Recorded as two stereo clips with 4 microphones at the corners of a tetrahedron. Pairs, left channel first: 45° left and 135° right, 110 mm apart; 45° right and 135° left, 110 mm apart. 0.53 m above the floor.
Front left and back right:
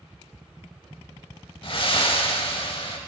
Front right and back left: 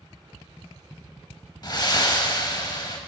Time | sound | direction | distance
1.6 | breathing | 5° left | 0.6 m